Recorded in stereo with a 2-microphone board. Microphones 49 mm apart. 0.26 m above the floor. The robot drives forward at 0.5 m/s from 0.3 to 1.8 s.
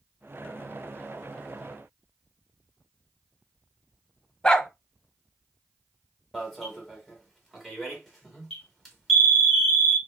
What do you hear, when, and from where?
4.4 s a dog barking: 15° left (ahead or behind), 0.6 m
6.3 s an alarm: 5° left (ahead or behind), 1.8 m